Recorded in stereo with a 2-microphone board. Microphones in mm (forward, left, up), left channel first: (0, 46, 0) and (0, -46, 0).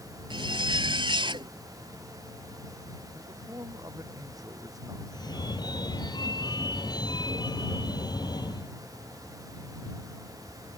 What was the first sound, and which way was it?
A zipper, 65° right (ahead or behind).